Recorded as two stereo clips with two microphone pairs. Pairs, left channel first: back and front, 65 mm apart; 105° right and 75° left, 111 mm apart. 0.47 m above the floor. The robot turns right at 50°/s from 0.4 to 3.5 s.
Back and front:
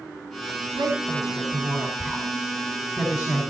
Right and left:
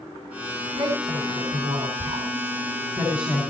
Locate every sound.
0.8 s a woman speaking: 35° left, 5 m; by 3.5 s 170° left, 5 m